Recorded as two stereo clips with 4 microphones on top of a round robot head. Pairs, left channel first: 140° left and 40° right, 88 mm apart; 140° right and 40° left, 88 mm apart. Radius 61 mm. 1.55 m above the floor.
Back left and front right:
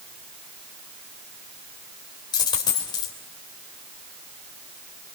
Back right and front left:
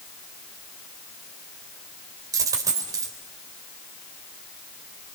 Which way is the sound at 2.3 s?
95° left.